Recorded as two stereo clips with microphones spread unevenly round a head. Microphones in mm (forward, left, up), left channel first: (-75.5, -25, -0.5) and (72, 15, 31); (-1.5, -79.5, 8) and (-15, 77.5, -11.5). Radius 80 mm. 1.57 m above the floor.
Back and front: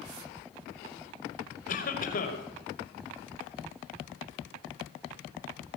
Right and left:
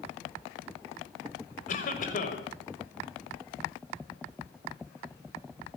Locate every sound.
1.7 s a cough: 125° right, 6 m